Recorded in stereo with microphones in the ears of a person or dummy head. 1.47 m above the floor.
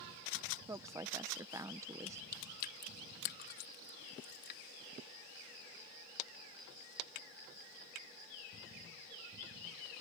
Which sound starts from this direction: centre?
A woman speaking, at 0.7 s.